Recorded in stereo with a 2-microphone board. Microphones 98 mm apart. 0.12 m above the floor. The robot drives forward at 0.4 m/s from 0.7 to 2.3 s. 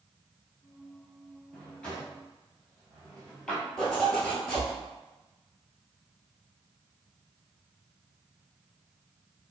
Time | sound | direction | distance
1.5 | a drawer | 10° left (ahead or behind) | 1.2 m
3.8 | a zipper | 10° left (ahead or behind) | 0.9 m